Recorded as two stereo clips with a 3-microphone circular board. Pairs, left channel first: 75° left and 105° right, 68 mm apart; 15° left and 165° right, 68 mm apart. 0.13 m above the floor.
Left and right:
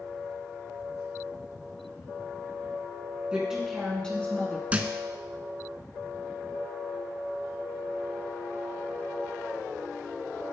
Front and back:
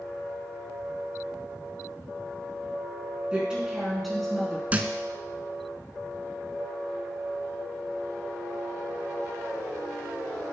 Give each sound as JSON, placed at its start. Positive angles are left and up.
{"t": 3.3, "sound": "a woman speaking", "azimuth_deg": -140, "distance_m": 1.7}
{"t": 4.7, "sound": "a thud", "azimuth_deg": -140, "distance_m": 0.5}